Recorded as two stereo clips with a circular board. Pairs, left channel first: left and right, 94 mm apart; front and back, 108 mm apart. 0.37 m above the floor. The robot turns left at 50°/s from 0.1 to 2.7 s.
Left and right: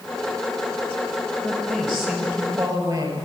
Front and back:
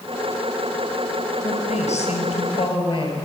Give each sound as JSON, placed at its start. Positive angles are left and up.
{"t": 1.4, "sound": "a woman speaking", "azimuth_deg": 25, "distance_m": 6.5}